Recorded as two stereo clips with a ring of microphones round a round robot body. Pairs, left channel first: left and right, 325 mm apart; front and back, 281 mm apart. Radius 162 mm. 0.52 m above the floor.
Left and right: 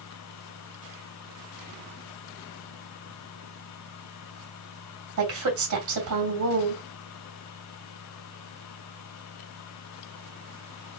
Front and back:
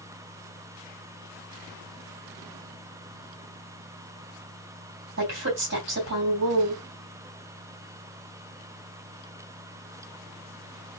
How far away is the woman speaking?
About 2.5 m.